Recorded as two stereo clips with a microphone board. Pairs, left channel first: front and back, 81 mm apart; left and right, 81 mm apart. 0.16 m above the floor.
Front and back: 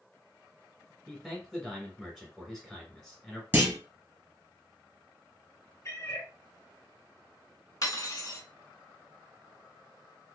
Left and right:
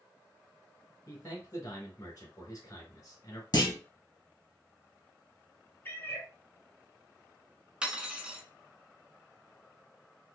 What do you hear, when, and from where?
1.1 s a man speaking: 100° left, 1.3 m
3.5 s a clunk: 120° left, 1.5 m
5.8 s a cat meowing: 35° left, 0.9 m
7.8 s cutlery clinking: 15° right, 0.8 m